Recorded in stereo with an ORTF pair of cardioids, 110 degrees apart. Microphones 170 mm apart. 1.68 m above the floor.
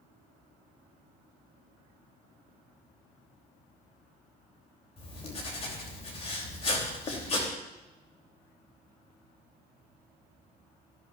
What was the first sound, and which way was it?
Writing, 40° left.